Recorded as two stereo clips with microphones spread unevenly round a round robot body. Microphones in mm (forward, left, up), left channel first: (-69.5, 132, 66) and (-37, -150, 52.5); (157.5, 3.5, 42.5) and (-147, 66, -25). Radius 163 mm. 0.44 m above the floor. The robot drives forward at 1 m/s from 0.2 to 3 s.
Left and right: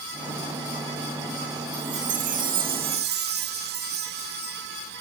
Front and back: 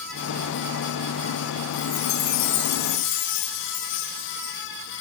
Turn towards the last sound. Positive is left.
turn(degrees=-35)